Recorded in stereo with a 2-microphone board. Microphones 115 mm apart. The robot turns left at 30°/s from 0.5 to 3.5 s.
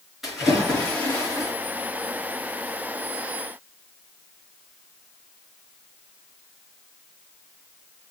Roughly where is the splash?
Behind.